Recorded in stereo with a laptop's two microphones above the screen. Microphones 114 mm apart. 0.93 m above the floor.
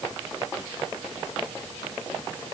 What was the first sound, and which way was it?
Only background noise.